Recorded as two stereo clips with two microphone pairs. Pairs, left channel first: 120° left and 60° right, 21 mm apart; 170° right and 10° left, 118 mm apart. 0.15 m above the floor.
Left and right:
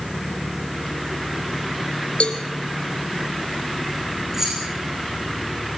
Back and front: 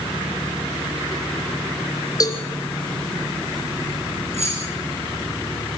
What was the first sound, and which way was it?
A cowbell, 135° left.